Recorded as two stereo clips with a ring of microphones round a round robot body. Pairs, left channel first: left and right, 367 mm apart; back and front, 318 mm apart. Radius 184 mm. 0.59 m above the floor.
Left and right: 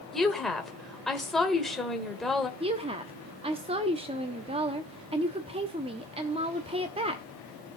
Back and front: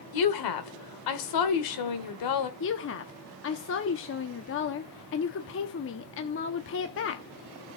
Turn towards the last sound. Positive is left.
turn(degrees=-160)